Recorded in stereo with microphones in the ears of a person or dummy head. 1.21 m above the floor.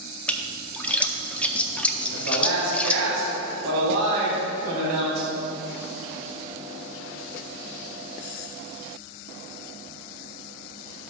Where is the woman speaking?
75° right (ahead or behind), 3 m.